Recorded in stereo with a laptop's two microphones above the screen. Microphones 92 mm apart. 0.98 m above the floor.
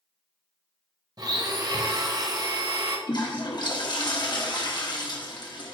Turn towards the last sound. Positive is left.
turn(degrees=50)  # may be behind; listen again after turning